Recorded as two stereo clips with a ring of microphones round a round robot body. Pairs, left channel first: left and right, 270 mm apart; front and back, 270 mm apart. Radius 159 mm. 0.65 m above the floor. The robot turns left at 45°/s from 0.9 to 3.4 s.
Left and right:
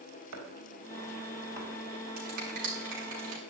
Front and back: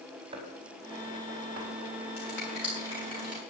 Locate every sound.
0.3 s chopping: 105° right, 3.5 m; by 1.7 s 140° right, 3.5 m
2.2 s a finger snap: 70° right, 7.5 m; by 3.4 s 125° right, 7.5 m